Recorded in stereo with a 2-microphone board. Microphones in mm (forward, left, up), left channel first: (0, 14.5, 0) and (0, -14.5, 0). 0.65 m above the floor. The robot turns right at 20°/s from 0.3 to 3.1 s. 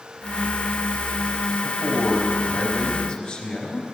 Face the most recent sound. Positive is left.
turn(degrees=45)  # may be behind; listen again after turning